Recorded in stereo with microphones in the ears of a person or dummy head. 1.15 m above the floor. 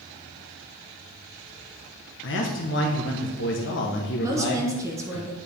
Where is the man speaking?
55° left (ahead or behind), 1.1 m.